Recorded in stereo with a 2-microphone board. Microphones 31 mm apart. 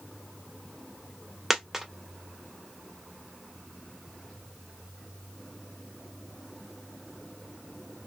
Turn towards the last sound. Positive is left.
turn(degrees=-10)  # may be behind; listen again after turning